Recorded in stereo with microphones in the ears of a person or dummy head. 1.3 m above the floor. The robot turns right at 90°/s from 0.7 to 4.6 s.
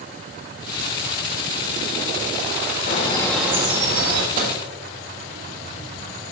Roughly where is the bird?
Behind left.